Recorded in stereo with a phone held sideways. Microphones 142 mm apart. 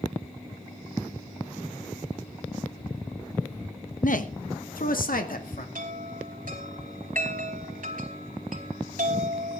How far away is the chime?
About 3 m.